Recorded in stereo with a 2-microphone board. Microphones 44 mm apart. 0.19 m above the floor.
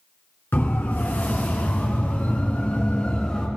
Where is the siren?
50° left (ahead or behind), 3.5 m; by 3.5 s 20° left (ahead or behind), 3 m.